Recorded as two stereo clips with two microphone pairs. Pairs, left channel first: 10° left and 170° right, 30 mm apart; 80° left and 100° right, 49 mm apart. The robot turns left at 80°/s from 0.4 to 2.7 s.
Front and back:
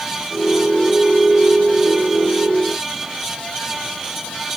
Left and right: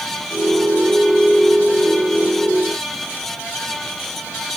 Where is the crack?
I don't hear a crack.